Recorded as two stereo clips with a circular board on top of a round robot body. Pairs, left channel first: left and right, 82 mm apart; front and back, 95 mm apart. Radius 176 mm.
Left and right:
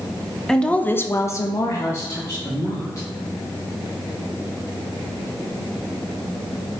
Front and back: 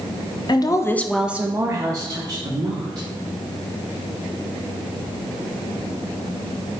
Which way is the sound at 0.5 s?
10° left.